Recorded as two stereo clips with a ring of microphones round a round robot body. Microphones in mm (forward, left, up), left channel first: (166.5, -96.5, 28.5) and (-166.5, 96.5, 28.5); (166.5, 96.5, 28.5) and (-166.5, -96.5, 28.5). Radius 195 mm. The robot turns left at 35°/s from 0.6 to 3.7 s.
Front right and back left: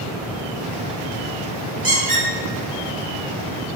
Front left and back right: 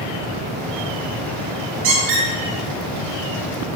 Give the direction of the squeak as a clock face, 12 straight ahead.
4 o'clock.